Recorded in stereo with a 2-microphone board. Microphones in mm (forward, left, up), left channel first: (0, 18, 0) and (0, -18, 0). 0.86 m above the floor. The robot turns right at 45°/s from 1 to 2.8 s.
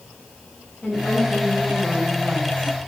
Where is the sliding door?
No sliding door in this recording.